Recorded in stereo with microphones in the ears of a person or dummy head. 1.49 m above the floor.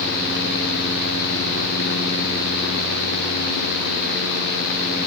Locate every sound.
Only background noise.